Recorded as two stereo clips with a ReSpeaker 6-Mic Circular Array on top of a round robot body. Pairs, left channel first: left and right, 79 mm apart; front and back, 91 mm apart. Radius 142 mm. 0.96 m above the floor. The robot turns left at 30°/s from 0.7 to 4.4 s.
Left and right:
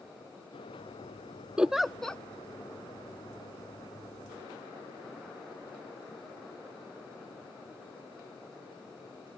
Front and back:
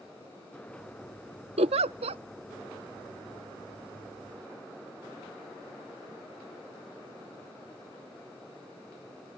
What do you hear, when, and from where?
1.6 s a giggle: 170° right; by 2.2 s 170° left